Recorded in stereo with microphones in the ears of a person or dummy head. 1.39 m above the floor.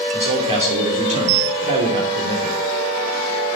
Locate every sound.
0.1 s a man speaking: 25° right (ahead or behind), 3.5 m